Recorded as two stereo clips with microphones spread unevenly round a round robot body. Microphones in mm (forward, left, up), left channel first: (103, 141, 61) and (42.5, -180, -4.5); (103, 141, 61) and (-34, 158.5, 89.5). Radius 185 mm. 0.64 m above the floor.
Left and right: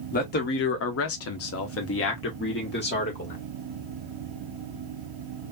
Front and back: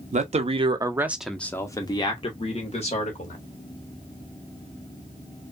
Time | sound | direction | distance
0.1 | a man speaking | 150° left | 0.8 m